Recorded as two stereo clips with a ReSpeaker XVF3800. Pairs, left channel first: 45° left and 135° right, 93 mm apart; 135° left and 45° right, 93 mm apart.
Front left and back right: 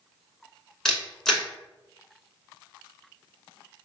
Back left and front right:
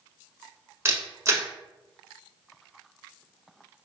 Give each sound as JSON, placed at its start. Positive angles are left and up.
{"t": 0.8, "sound": "a camera shutter", "azimuth_deg": -35, "distance_m": 0.7}